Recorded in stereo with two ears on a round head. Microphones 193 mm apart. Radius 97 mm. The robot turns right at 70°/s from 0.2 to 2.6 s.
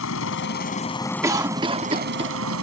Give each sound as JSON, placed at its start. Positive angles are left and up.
{"t": 0.0, "sound": "a helicopter", "side_deg": 70}
{"t": 1.2, "sound": "a cough", "side_deg": -15}